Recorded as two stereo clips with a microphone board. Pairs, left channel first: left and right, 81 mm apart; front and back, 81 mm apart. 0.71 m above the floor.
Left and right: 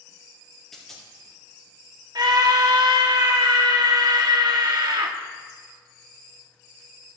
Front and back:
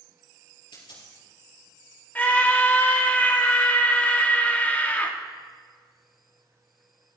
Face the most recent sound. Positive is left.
turn(degrees=-65)